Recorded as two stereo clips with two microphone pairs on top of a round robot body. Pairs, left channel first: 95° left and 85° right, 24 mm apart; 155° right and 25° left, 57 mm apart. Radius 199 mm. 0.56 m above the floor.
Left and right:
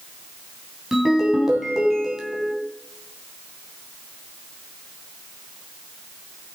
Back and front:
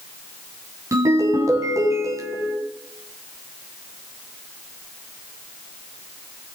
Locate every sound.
0.9 s a ringtone: 5° right, 3 m